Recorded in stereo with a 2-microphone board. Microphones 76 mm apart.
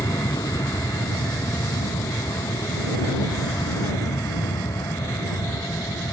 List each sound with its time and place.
0.0 s an aircraft: 55° left (ahead or behind); by 6.1 s 60° left (ahead or behind)